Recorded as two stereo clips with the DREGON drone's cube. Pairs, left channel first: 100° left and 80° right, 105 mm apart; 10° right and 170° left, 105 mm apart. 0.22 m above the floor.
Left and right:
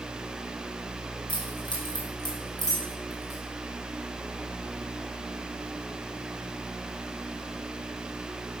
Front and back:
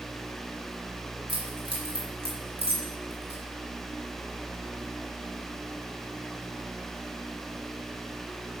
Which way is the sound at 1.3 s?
135° left.